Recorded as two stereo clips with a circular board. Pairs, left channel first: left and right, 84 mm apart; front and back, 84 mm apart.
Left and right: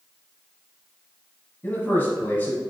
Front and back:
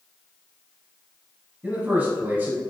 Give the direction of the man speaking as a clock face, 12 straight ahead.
8 o'clock.